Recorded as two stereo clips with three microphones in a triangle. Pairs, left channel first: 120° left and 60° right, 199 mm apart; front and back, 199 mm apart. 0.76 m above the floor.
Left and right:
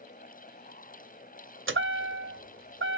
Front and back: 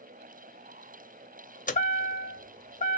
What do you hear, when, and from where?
1.7 s a chime: 55° right, 0.5 m